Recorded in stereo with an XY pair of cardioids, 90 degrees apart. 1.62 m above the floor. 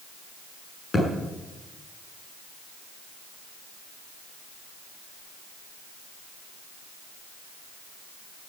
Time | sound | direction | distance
0.9 | a thud | 35° left | 7.5 m